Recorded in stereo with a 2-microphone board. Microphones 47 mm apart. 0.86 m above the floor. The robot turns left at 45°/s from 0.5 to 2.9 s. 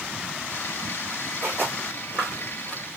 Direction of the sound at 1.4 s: 50° right (ahead or behind).